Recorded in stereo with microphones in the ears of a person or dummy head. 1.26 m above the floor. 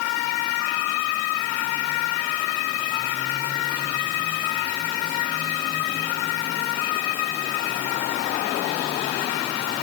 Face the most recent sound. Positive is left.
No sound to turn to.